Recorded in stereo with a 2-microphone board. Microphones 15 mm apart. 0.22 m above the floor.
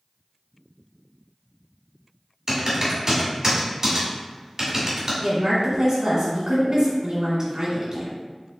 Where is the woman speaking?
45° right (ahead or behind), 1.7 m.